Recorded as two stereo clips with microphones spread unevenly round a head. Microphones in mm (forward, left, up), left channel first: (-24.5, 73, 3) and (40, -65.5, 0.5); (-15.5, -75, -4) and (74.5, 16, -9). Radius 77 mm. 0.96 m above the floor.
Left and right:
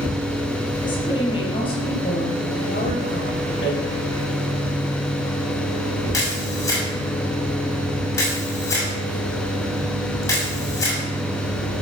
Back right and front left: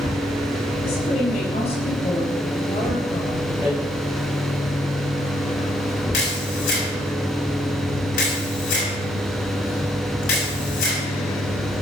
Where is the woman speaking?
175° left, 7 m; by 3.4 s 150° left, 3.5 m.